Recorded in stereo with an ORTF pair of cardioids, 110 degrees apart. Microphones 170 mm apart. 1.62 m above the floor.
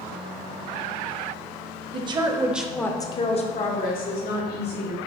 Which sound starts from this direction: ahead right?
A woman speaking, at 1.9 s.